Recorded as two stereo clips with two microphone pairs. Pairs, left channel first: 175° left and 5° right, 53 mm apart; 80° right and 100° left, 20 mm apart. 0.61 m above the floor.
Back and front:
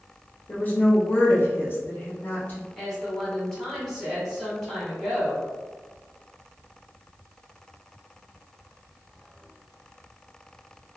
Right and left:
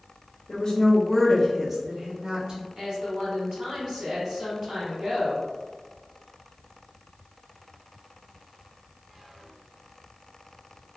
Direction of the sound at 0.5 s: 130° right.